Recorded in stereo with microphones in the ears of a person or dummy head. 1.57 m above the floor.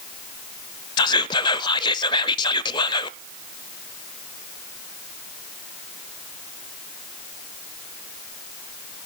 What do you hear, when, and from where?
1.0 s whispering: 25° left (ahead or behind), 0.6 m